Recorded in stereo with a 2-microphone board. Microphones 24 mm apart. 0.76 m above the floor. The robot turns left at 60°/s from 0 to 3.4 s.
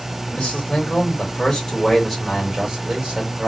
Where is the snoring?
No snoring in this recording.